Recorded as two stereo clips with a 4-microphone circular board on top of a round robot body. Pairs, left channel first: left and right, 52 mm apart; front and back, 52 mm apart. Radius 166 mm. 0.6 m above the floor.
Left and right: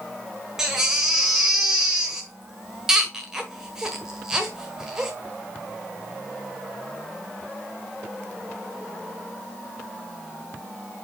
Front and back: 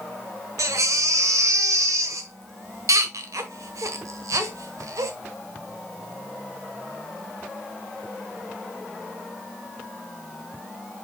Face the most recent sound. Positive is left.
turn(degrees=-170)